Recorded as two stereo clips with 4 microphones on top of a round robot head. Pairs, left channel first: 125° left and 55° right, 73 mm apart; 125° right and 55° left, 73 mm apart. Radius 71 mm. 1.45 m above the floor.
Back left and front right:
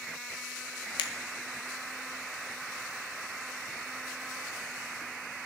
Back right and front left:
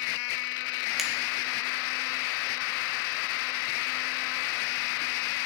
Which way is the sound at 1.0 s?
145° left.